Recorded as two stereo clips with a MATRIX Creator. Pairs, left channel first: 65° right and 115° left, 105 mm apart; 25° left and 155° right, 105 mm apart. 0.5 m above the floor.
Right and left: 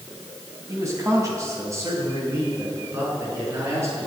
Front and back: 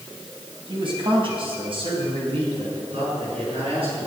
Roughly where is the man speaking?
Behind.